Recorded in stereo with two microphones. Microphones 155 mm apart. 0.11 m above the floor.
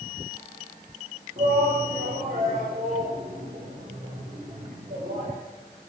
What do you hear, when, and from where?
1.4 s a shout: 75° right (ahead or behind), 7.5 m; by 5.3 s 60° right (ahead or behind), 7 m